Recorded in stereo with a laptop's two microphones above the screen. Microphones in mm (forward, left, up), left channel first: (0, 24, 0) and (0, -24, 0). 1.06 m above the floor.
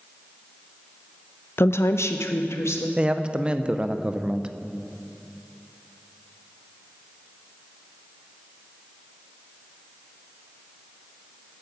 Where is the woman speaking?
55° left (ahead or behind), 0.6 m; by 2.9 s 70° left (ahead or behind), 1.4 m.